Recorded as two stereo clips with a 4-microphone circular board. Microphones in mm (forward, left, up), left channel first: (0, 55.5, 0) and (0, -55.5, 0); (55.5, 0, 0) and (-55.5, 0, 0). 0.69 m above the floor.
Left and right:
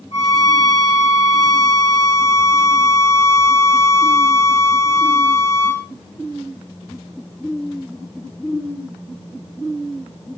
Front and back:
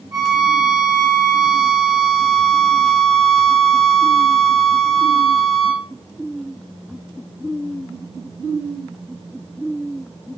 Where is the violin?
120° left, 1.4 m.